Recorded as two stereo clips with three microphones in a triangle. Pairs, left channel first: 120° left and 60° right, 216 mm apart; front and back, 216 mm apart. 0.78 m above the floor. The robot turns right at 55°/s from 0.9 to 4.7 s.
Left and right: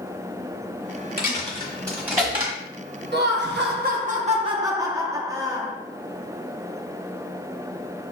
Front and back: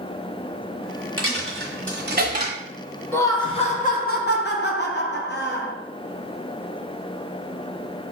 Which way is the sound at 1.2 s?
165° left.